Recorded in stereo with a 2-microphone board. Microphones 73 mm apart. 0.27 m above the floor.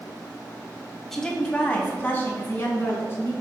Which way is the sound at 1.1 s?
5° left (ahead or behind).